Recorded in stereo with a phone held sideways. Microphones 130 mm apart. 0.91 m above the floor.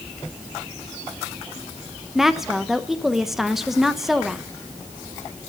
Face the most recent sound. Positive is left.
turn(degrees=-5)  # may be behind; listen again after turning